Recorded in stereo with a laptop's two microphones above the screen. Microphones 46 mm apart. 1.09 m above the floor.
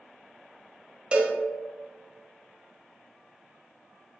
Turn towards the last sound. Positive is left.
turn(degrees=-25)  # may be behind; listen again after turning